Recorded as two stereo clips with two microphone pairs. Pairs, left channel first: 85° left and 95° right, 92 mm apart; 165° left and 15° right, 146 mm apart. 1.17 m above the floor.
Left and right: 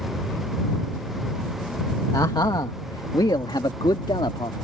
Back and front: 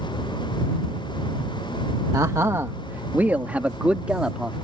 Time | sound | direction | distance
2.1 | a man speaking | 45° left | ?